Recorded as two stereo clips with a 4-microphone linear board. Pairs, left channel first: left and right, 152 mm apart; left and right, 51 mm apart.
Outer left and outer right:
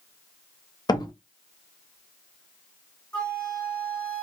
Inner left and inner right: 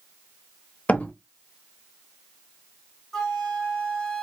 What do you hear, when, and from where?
0.9 s a door slam: 25° left (ahead or behind), 0.6 m
3.1 s a flute: 10° left (ahead or behind), 1.7 m